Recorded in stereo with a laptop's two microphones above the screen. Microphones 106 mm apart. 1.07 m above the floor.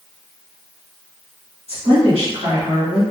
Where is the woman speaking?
65° right (ahead or behind), 1.6 m.